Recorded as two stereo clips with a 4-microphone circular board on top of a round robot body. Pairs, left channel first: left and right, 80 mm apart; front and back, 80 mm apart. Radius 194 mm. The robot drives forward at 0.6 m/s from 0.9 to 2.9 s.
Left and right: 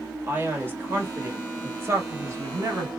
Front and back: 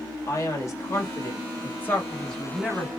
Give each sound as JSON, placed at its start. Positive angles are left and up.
{"t": 0.3, "sound": "a man speaking", "azimuth_deg": -35, "distance_m": 1.8}